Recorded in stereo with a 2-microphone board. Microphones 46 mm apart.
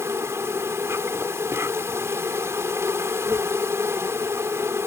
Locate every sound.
0.0 s an insect: 75° right (ahead or behind)